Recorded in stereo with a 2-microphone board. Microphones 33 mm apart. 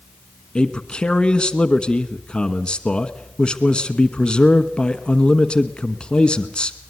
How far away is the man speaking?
About 1.2 m.